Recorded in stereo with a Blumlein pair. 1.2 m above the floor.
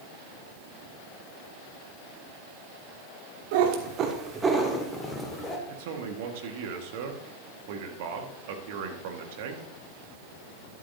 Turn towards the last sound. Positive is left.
turn(degrees=-50)